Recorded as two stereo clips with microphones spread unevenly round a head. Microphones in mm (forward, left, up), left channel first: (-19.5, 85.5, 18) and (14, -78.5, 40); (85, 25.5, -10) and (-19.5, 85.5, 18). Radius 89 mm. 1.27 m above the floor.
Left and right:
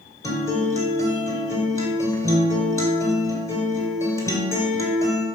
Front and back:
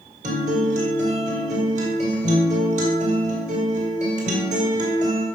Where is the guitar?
175° left, 2 m.